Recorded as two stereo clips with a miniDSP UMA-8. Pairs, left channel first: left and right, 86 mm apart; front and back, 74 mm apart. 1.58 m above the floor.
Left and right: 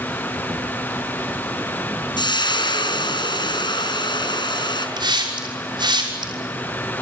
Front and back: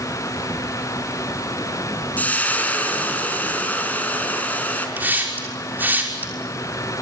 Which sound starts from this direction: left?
Frying, at 2.2 s.